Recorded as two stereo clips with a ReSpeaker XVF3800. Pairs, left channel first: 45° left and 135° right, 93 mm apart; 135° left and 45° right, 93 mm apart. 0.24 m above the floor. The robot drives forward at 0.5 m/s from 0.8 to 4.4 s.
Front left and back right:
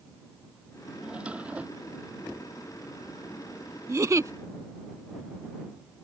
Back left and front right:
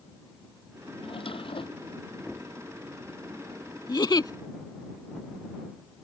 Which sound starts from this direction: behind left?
A drawer, at 1.0 s.